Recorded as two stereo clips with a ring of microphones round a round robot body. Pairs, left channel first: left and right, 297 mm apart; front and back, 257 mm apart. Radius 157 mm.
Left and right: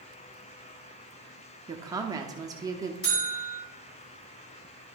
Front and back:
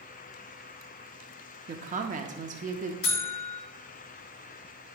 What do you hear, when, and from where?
1.7 s a woman speaking: 155° right, 0.7 m
3.0 s a buzzer: 35° left, 3 m